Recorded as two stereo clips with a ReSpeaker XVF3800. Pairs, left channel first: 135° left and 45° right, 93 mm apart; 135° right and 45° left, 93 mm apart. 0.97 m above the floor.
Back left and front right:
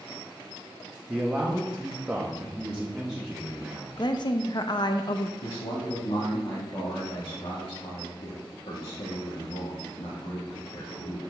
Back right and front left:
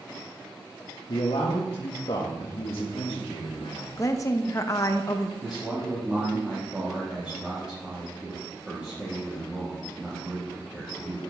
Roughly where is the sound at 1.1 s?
Behind right.